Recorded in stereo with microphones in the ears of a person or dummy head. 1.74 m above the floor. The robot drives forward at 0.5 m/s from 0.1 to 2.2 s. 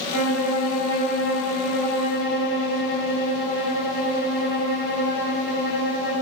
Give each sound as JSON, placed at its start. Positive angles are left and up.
{"t": 0.1, "sound": "a violin", "side_deg": 70, "distance_m": 3.0}